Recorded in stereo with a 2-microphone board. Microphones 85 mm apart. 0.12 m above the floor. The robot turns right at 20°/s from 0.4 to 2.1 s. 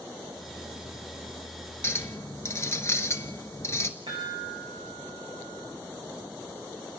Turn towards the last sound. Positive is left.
turn(degrees=-75)  # may be behind; listen again after turning